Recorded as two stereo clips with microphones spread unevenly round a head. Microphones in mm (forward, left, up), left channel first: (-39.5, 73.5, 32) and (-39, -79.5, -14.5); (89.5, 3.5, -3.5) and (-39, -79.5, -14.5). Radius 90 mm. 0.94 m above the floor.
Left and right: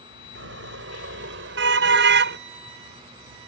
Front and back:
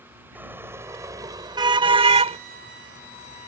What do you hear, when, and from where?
0.3 s a car horn: 70° right; by 2.4 s 100° right